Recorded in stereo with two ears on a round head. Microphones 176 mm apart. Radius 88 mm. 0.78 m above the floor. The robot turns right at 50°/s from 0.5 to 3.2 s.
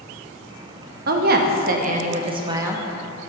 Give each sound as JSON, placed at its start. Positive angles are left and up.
{"t": 1.1, "sound": "a woman speaking", "azimuth_deg": -100, "distance_m": 0.6}